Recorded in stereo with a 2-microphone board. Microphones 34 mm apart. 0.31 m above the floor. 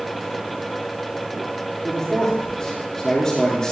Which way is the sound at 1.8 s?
25° left (ahead or behind).